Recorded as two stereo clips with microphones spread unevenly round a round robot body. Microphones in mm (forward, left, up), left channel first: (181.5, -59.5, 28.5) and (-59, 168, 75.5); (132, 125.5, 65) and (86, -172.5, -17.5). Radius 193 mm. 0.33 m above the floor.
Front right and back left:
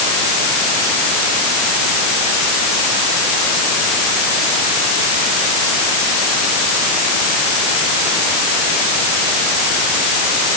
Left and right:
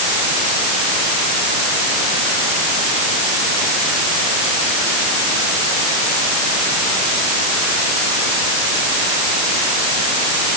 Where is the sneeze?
I don't hear a sneeze.